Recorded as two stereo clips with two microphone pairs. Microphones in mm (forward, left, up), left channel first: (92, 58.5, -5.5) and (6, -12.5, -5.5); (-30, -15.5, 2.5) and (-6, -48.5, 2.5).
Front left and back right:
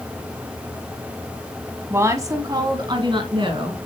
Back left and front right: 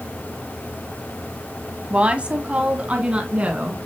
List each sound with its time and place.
1.9 s a woman speaking: 90° right, 1.8 m; by 3.9 s 115° right, 3 m